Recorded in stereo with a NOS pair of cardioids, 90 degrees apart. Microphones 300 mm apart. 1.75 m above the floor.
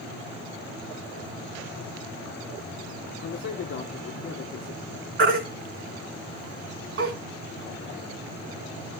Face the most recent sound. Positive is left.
turn(degrees=-45)